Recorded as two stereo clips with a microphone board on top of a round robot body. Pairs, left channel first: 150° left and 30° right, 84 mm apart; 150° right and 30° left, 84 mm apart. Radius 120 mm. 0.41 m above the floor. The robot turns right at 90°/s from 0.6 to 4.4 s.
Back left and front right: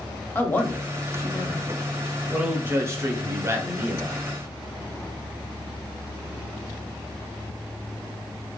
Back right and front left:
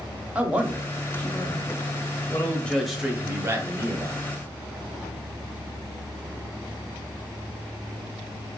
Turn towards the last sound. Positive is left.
turn(degrees=75)